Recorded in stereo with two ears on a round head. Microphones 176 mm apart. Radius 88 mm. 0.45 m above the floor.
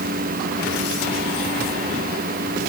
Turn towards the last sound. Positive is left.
No sound to turn to.